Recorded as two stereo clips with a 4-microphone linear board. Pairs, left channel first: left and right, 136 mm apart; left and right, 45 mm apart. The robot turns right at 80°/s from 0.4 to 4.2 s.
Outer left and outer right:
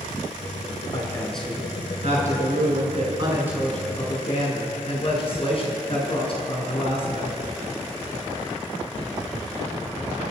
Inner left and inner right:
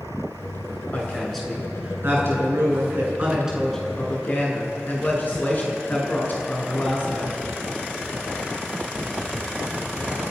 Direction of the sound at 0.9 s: 140° left.